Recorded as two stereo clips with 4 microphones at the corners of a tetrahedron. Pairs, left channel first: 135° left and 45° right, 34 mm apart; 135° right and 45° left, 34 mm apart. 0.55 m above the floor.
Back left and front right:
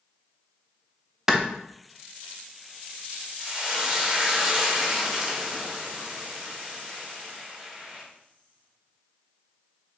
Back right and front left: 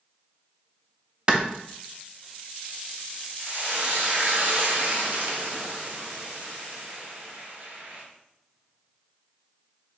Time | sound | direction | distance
1.3 | a clap | 20° left | 0.5 m
3.4 | frying | 30° left | 1.0 m